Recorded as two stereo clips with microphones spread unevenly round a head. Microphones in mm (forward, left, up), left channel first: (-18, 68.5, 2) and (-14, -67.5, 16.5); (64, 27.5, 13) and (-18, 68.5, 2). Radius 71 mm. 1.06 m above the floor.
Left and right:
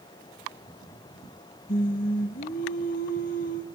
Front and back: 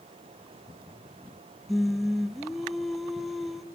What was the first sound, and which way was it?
Singing, 65° left.